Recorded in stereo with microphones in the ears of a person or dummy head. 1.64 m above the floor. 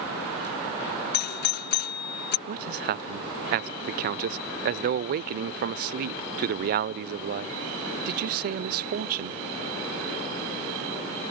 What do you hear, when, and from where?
1.1 s a doorbell: 50° left (ahead or behind)
2.5 s a man speaking: 45° right (ahead or behind)